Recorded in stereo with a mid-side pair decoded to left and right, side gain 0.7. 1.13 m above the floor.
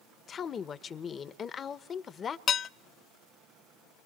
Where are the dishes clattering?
40° left, 0.6 m.